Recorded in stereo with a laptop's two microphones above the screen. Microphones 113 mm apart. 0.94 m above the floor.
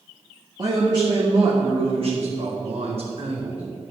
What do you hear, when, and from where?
0.6 s a man speaking: 35° right (ahead or behind), 1.7 m; by 3.6 s 60° right (ahead or behind), 3 m